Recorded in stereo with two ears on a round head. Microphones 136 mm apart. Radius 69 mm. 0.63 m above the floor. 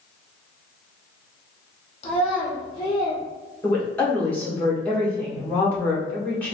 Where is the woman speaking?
10° left (ahead or behind), 1.8 m.